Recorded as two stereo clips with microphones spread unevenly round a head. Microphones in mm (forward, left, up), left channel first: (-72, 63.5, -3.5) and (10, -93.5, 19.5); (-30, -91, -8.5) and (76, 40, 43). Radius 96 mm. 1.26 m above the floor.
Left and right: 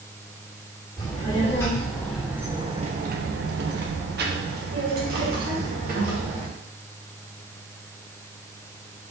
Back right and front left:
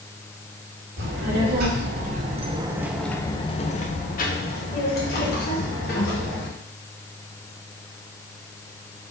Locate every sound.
1.0 s a child speaking: 45° left, 1.5 m; by 6.5 s 100° right, 2.5 m